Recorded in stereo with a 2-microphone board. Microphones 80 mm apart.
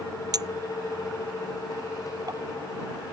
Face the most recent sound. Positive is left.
turn(degrees=-50)  # may be behind; listen again after turning